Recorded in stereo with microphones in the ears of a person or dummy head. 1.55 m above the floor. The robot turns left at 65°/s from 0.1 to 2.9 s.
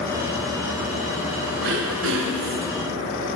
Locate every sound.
1.6 s throat clearing: 70° right, 1.2 m; by 2.7 s 140° right, 1.2 m